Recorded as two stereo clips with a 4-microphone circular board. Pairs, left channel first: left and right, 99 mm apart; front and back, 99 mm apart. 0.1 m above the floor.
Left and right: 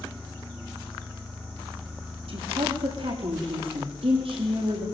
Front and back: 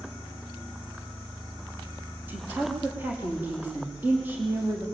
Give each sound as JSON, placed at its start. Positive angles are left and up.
{"t": 2.3, "sound": "a woman speaking", "azimuth_deg": -110, "distance_m": 6.0}